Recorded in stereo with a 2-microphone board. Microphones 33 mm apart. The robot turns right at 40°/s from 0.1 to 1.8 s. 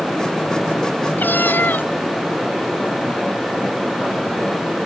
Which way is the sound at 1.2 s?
80° left.